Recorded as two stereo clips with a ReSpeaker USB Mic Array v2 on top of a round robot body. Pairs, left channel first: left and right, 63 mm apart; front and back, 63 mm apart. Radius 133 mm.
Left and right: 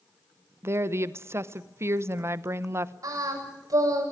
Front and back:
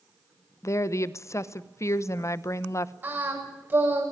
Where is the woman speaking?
45° right, 1.1 m.